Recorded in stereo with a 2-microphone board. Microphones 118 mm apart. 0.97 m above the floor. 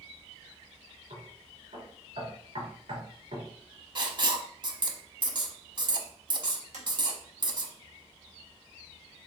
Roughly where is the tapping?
Right.